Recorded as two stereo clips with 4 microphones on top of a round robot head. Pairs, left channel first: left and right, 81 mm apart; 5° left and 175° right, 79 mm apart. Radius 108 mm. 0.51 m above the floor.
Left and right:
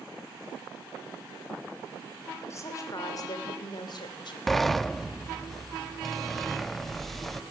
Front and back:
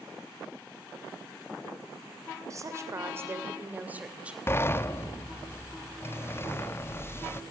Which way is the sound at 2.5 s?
140° left.